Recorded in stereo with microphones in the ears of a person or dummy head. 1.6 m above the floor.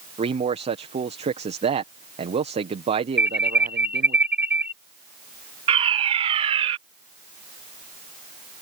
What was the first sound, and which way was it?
A man speaking, 35° right (ahead or behind).